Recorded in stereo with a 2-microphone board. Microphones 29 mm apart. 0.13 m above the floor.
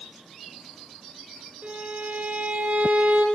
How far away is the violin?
About 4 m.